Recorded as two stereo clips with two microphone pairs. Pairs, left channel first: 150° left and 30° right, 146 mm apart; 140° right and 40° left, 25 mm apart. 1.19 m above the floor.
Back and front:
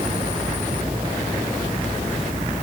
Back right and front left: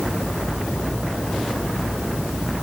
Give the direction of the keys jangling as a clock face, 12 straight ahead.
I don't hear keys jangling.